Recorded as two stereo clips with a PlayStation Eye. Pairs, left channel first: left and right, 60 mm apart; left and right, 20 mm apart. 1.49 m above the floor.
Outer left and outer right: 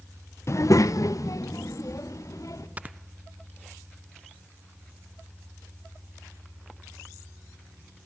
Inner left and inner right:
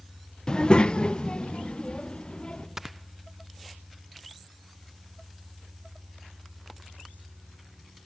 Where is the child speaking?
45° left (ahead or behind), 0.5 m; by 2.7 s 60° left (ahead or behind), 3 m.